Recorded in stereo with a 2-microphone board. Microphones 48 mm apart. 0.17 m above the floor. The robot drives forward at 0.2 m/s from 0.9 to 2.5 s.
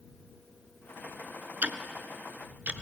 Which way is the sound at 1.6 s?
35° right (ahead or behind).